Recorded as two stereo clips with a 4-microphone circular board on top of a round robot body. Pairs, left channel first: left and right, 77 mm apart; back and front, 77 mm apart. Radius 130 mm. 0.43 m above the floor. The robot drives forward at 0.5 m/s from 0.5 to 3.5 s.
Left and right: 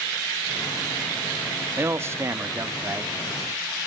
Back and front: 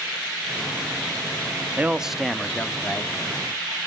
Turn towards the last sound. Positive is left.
turn(degrees=-150)